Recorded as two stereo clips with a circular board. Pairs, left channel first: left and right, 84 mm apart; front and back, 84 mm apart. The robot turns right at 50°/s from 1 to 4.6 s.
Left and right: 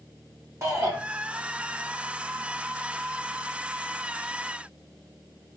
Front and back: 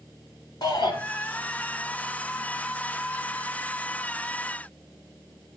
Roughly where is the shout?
Ahead right.